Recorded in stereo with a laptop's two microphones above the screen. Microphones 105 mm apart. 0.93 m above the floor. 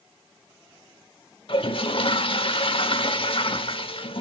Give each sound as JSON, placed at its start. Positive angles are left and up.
{"t": 1.5, "sound": "a toilet flushing", "side_deg": 60, "distance_m": 0.9}